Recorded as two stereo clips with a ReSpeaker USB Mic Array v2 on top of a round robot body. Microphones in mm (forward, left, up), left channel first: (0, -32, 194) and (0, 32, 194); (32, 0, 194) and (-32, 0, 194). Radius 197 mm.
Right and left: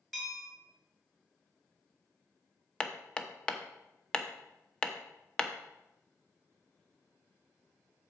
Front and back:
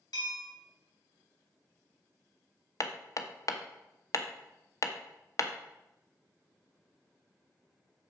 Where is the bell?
5° right, 2 m.